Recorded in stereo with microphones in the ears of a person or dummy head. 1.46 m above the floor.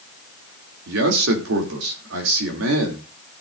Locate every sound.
0.9 s a man speaking: 85° right, 2.5 m